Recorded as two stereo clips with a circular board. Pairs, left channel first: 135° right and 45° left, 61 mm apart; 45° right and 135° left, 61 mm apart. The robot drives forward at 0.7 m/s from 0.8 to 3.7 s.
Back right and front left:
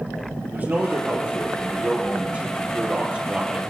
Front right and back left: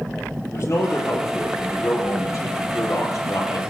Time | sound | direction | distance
0.5 | a man speaking | 20° right | 5.5 m